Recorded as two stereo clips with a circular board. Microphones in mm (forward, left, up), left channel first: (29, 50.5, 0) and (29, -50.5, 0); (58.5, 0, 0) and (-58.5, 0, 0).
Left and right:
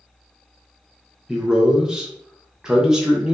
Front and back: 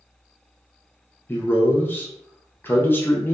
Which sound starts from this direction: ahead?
A man speaking, at 1.3 s.